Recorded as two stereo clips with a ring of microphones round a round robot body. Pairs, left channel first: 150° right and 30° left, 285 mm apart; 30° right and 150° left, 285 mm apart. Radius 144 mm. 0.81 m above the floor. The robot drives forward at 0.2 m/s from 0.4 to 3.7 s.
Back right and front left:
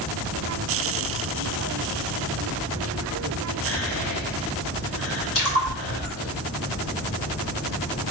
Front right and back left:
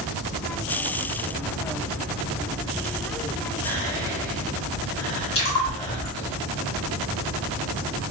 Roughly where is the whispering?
Right.